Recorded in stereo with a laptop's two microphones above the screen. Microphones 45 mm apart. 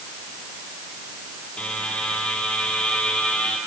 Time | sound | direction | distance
1.6 | a buzzer | 25° left (ahead or behind) | 6.5 m